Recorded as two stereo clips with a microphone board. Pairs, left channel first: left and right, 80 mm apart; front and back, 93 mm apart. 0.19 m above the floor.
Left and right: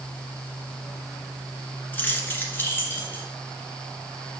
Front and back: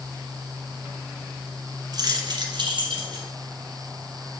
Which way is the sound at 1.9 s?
155° left.